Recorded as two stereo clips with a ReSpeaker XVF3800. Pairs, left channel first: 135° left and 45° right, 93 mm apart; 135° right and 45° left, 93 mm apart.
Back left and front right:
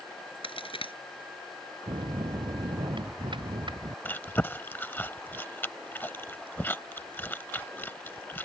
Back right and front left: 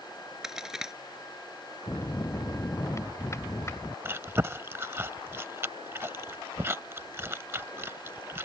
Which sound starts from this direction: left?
Chewing, at 4.0 s.